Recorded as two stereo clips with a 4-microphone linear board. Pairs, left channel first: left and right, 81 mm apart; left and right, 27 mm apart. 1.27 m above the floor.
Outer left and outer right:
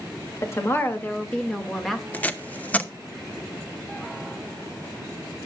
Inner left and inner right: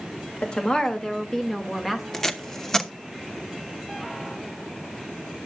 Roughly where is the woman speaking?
Left.